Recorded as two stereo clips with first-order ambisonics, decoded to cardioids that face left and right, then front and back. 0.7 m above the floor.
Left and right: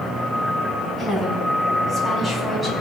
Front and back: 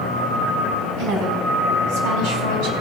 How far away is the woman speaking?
About 6 m.